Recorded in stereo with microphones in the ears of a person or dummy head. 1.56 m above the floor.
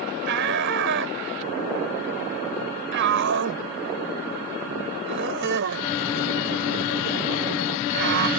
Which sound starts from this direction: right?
A shout, at 0.3 s.